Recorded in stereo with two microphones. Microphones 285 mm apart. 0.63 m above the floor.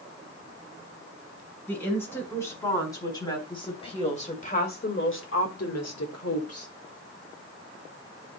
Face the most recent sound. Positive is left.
turn(degrees=50)  # may be behind; listen again after turning